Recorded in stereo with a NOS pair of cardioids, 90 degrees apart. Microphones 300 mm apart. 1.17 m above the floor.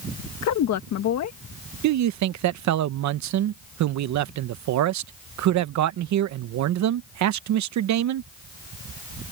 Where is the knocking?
I don't hear knocking.